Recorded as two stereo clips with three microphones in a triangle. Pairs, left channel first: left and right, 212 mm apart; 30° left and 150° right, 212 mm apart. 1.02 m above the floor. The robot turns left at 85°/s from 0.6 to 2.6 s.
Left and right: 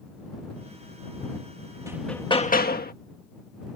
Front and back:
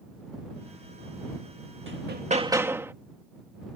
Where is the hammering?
165° right; by 2.9 s 135° left.